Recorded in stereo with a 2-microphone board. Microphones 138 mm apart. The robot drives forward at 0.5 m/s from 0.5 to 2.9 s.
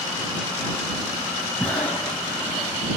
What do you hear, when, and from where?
1.6 s breathing: 10° left (ahead or behind), 0.8 m; by 2.7 s 5° left (ahead or behind), 1.3 m